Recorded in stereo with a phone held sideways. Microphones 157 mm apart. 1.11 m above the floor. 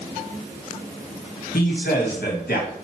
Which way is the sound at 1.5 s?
75° left (ahead or behind).